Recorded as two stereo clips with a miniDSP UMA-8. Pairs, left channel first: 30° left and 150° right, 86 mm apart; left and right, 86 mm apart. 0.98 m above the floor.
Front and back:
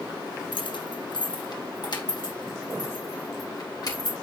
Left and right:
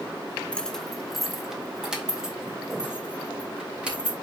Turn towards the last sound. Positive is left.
turn(degrees=-10)